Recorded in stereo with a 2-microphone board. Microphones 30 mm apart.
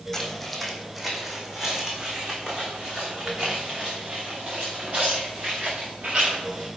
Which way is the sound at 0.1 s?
10° left (ahead or behind).